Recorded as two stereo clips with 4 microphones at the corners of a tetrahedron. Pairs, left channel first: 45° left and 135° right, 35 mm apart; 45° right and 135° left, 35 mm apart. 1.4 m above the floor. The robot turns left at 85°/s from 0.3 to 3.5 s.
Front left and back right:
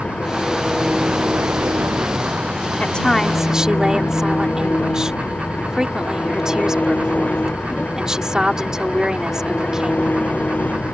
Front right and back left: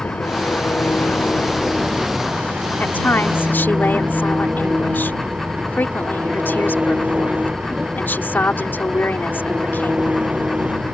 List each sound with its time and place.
0.0 s an engine running: 10° right; by 10.9 s 75° left
2.8 s a woman speaking: 5° right; by 10.2 s 65° right